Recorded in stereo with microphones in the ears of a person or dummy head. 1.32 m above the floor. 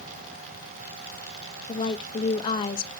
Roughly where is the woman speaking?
Left.